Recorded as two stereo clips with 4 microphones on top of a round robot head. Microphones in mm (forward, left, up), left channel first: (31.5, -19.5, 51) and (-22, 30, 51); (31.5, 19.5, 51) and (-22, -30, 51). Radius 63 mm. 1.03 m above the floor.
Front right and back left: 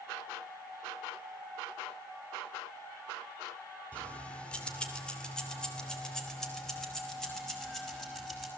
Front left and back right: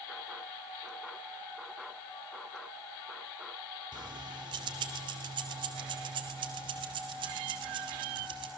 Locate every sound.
3.9 s keys jangling: 115° right, 2 m; by 8.5 s 130° right, 5 m